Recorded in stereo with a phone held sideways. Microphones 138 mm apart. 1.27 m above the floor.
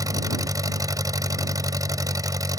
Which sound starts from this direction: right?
An engine running, at 0.0 s.